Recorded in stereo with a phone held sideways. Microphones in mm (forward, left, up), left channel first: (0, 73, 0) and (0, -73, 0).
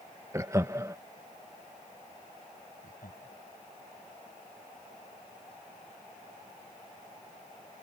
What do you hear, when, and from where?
0.3 s laughter: 20° right (ahead or behind)
2.8 s laughter: 85° left